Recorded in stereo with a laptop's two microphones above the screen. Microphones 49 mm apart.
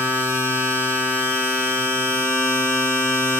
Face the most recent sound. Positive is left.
turn(degrees=-70)  # may be behind; listen again after turning